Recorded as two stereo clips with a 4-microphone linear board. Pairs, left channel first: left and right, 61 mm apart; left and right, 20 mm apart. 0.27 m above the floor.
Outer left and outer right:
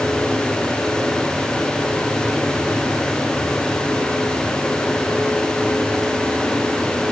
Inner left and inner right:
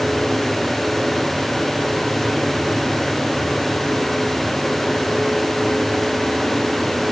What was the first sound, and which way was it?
Only background noise.